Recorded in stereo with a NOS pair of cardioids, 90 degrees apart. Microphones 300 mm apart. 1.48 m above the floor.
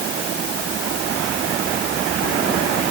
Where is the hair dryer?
I don't hear a hair dryer.